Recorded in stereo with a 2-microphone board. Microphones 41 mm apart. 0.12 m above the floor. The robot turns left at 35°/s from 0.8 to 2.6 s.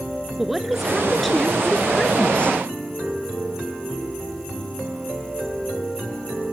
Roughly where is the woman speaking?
Behind.